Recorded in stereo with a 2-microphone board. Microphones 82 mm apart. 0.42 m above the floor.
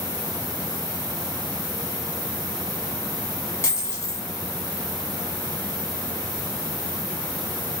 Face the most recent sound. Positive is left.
turn(degrees=35)  # may be behind; listen again after turning